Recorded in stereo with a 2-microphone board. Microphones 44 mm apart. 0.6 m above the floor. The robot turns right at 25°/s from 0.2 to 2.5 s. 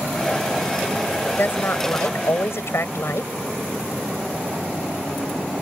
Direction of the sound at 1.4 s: 50° left (ahead or behind).